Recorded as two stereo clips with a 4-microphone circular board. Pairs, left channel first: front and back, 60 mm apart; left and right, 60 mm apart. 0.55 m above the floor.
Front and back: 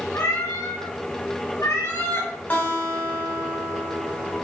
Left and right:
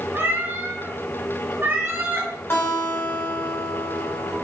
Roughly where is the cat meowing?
Ahead right.